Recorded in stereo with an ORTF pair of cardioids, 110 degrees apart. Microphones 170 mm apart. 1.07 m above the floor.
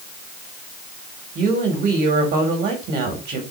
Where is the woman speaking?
65° right, 3.5 m.